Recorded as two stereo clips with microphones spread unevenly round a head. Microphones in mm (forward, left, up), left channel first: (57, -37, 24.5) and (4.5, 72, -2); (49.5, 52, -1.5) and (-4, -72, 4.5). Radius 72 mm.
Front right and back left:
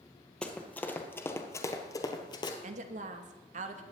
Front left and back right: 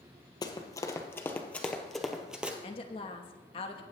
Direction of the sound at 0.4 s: 10° left.